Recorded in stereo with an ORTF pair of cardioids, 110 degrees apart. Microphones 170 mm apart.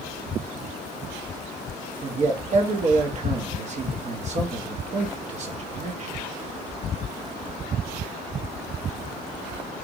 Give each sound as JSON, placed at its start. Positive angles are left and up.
{"t": 2.0, "sound": "a man speaking", "azimuth_deg": -45, "distance_m": 1.1}